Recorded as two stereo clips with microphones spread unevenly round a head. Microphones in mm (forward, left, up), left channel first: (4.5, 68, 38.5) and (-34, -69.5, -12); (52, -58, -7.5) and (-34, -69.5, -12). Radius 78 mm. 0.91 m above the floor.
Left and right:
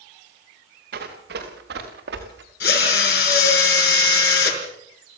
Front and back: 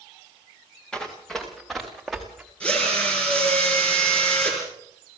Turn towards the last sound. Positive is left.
turn(degrees=90)